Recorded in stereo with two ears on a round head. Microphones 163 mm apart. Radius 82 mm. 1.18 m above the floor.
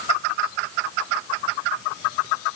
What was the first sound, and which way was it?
Only background noise.